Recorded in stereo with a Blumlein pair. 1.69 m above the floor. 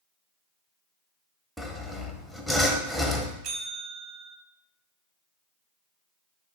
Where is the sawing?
Straight ahead, 0.6 m.